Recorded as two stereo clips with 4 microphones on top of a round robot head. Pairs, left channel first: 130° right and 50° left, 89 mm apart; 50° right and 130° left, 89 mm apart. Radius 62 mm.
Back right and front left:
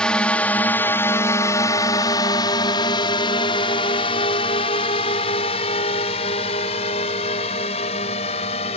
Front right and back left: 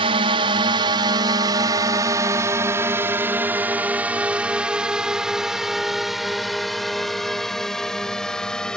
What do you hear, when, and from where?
0.0 s a drone: 150° left; by 8.8 s 135° right